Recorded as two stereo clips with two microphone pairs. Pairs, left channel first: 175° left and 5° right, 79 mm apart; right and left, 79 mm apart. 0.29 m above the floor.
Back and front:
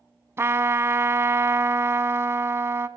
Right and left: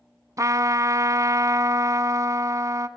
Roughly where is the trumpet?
Ahead left.